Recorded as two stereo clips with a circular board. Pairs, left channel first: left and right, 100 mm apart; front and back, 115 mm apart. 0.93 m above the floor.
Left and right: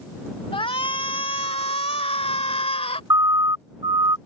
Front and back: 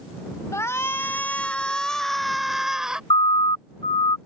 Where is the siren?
40° right; by 4.2 s 45° right.